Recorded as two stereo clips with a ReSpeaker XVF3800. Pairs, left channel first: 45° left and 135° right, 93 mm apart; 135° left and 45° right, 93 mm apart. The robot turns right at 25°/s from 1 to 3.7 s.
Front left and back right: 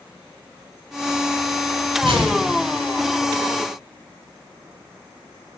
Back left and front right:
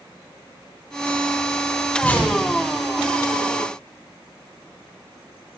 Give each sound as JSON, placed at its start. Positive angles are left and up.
{"t": 2.0, "sound": "a whoosh", "azimuth_deg": -150, "distance_m": 1.3}